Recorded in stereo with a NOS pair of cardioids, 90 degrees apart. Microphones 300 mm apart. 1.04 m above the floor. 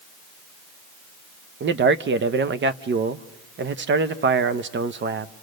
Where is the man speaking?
40° right, 0.9 m.